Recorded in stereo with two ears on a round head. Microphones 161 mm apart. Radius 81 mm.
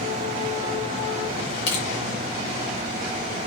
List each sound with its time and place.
1.7 s crushing: 70° left (ahead or behind), 1.6 m